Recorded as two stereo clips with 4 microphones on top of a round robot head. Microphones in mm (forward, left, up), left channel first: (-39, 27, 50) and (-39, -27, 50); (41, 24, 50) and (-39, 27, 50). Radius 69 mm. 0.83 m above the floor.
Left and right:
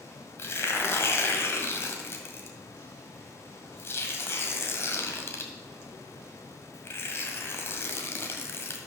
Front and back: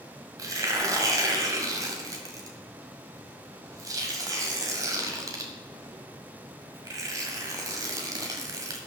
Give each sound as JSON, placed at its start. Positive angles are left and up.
{"t": 0.4, "sound": "tearing paper", "azimuth_deg": 130, "distance_m": 1.8}